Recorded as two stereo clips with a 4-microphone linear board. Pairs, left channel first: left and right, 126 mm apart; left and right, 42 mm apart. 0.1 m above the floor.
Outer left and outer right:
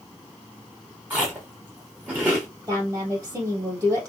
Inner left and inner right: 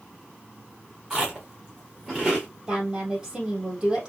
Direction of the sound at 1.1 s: 15° right (ahead or behind).